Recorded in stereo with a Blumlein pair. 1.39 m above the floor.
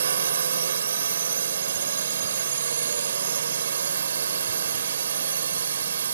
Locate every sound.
0.0 s a drone: 70° right